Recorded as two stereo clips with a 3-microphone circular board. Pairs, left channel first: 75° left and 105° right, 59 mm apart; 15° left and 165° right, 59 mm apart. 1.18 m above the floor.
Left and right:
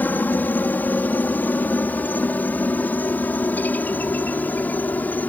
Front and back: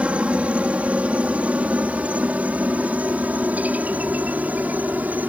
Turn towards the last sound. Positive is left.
turn(degrees=135)